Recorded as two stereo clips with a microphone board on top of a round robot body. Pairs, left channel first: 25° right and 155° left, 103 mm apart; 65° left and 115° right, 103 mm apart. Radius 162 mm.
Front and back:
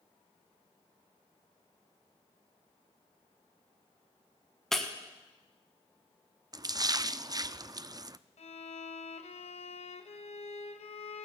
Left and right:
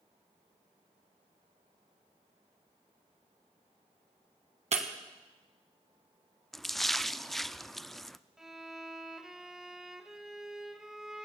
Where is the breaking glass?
110° right, 1.6 m.